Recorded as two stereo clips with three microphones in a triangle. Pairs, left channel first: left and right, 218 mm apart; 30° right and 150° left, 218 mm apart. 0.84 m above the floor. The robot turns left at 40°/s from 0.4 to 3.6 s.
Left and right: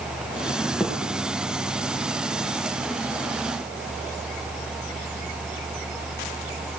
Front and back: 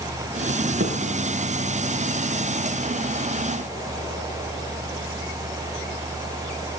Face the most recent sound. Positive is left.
turn(degrees=75)